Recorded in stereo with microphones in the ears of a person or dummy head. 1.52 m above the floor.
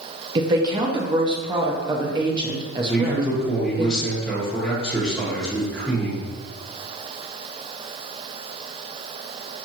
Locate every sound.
0.3 s a woman speaking: 20° right (ahead or behind), 0.5 m
2.9 s a man speaking: 5° left (ahead or behind), 0.8 m